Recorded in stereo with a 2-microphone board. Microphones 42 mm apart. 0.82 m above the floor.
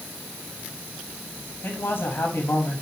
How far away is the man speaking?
About 6.5 m.